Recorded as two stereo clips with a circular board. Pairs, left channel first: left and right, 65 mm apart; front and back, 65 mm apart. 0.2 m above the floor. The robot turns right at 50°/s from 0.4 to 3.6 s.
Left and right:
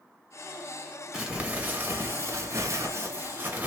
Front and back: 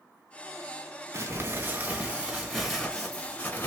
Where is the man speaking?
I don't hear a man speaking.